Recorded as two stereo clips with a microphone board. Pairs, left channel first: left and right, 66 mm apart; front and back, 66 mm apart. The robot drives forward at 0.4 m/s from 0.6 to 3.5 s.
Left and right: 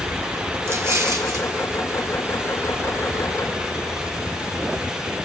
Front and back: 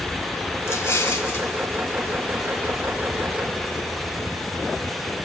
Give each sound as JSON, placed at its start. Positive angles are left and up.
{"t": 0.7, "sound": "an explosion", "azimuth_deg": -45, "distance_m": 1.6}